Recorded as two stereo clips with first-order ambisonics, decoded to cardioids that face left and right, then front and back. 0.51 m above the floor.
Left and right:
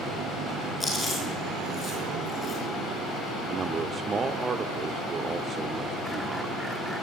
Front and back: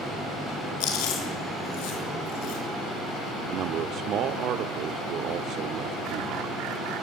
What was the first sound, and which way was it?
Chewing, 10° left.